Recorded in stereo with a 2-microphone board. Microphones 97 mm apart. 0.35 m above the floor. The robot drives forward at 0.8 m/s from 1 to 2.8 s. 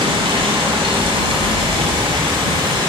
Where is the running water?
65° right (ahead or behind), 1.4 m; by 2.9 s 50° right (ahead or behind), 1.7 m.